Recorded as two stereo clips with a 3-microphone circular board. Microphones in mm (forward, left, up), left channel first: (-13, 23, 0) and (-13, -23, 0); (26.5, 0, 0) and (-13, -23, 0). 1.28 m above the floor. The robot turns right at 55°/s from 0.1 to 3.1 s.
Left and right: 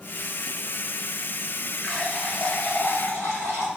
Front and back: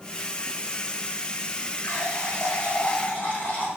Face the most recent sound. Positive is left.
turn(degrees=80)